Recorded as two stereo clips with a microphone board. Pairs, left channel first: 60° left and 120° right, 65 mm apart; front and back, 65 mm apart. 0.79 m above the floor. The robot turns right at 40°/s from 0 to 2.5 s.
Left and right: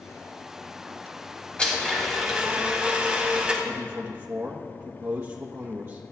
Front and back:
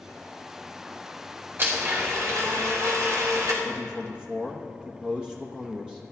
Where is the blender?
130° left, 3 m; by 3.5 s 165° left, 3 m.